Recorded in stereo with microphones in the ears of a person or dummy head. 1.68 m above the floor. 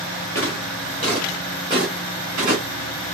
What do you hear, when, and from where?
0.3 s footsteps: 20° left (ahead or behind), 1.8 m; by 2.6 s 15° right (ahead or behind), 1.8 m